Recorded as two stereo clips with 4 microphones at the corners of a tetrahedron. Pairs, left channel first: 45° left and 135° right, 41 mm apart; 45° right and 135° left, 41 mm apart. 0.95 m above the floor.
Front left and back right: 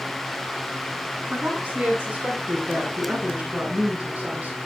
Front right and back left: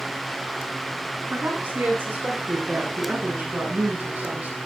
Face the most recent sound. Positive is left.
turn(degrees=170)